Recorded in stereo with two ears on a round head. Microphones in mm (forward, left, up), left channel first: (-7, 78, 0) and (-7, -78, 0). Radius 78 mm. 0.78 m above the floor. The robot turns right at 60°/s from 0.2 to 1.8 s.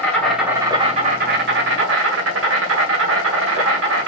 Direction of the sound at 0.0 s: 175° left.